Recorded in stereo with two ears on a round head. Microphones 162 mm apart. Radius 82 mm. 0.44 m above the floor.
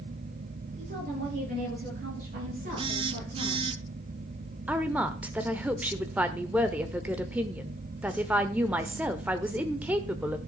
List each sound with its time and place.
0.8 s a woman speaking: 40° right (ahead or behind), 9 m; by 3.7 s 50° right (ahead or behind), 7.5 m
2.8 s a phone buzzing: 30° right (ahead or behind), 0.6 m
4.7 s a woman speaking: 10° right (ahead or behind), 1.0 m